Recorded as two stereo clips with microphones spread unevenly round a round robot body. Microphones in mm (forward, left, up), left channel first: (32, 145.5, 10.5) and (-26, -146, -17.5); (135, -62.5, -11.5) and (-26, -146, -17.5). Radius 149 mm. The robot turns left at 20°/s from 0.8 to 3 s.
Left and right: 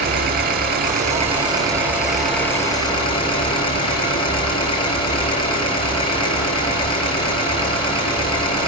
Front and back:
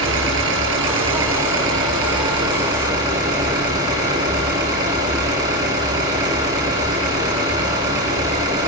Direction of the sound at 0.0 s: 165° right.